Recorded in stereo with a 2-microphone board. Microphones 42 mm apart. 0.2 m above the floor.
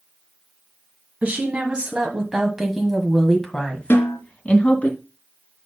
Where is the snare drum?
60° left (ahead or behind), 3 m.